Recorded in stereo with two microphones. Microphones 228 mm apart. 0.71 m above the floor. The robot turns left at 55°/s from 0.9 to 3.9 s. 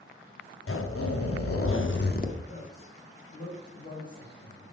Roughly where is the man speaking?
Left.